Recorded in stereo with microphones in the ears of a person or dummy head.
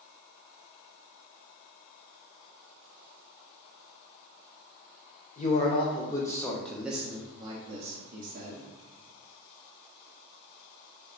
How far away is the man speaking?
About 1.1 m.